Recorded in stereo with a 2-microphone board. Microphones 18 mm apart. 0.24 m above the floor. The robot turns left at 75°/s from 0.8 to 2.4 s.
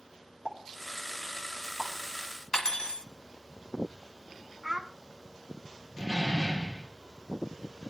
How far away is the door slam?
About 4 m.